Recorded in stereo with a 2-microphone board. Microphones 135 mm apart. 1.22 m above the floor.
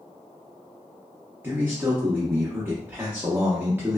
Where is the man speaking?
15° right (ahead or behind), 0.7 m.